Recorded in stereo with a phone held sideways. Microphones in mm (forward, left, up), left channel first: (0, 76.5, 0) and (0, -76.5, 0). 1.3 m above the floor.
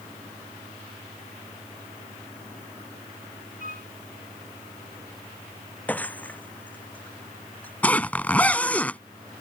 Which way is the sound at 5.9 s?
10° left (ahead or behind).